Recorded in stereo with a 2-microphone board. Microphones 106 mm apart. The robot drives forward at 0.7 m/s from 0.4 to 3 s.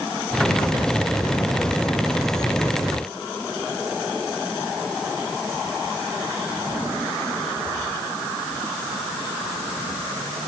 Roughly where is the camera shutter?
I don't hear a camera shutter.